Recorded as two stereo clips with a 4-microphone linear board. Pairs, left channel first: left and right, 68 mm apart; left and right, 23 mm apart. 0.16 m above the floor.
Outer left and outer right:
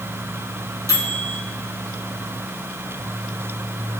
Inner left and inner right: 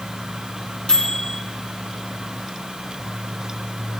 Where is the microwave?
60° left (ahead or behind), 3.5 m.